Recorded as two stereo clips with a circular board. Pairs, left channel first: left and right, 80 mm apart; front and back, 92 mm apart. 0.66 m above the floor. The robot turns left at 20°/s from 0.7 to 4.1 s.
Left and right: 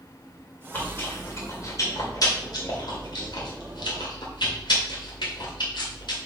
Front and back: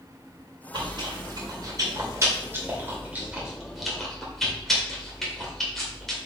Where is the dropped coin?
I don't hear a dropped coin.